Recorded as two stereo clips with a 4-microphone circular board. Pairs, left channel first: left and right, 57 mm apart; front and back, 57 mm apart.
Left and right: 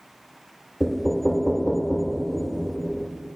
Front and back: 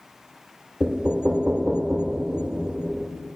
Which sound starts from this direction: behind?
Knocking, at 0.8 s.